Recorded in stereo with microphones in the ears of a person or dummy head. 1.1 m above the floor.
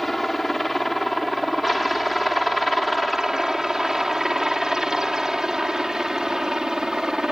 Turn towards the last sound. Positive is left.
turn(degrees=0)  # may be behind; listen again after turning